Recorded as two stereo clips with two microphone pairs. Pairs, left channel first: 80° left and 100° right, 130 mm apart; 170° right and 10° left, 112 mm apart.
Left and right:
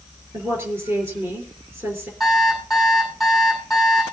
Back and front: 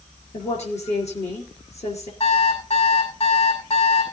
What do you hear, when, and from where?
0.3 s a woman speaking: 175° right, 4 m
2.2 s an alarm clock: 170° left, 5.5 m